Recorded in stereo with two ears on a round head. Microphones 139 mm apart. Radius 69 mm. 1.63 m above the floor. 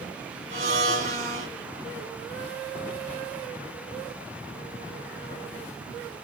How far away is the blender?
About 3 m.